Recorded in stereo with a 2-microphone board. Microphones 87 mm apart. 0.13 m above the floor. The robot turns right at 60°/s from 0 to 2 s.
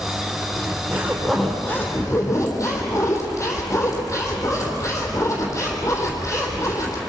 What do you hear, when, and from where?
0.6 s a zipper: 50° right, 4 m; by 7.0 s 40° left, 4 m